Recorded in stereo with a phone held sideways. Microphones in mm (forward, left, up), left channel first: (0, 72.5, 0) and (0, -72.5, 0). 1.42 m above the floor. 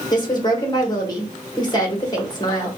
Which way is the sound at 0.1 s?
30° left (ahead or behind).